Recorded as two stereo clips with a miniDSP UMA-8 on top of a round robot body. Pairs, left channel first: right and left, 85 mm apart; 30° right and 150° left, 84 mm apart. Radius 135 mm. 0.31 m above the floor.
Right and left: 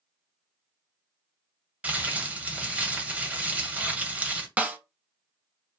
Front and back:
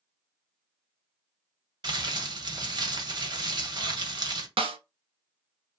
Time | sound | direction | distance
1.8 | crumpling | 160° left | 1.2 m
4.6 | a snare drum | 165° left | 0.6 m